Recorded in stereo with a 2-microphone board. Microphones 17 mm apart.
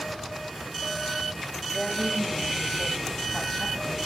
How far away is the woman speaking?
About 1.3 m.